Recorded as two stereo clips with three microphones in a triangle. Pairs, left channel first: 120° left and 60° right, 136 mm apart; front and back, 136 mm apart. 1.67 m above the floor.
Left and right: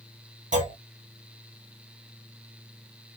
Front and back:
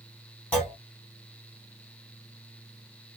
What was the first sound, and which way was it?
A clunk, 75° right.